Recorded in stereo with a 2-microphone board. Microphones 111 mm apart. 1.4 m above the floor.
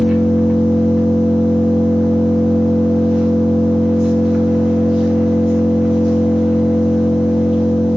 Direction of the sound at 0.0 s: 5° right (ahead or behind).